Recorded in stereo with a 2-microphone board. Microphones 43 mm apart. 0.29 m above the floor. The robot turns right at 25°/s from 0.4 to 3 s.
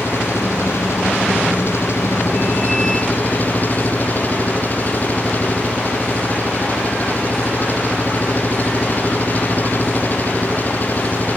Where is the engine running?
70° left; by 11.4 s 135° left.